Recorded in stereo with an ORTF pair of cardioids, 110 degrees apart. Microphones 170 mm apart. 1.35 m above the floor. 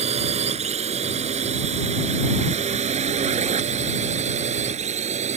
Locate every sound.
0.0 s a drone: 40° right